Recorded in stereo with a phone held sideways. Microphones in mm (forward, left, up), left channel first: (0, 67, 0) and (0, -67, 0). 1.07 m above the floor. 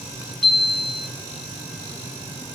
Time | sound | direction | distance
0.4 | a chime | 5° left (ahead or behind) | 0.6 m